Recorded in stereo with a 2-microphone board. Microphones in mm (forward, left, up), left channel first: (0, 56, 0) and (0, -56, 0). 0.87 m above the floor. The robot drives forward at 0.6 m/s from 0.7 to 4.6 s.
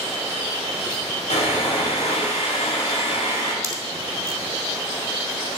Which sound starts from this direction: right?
A pop, at 3.6 s.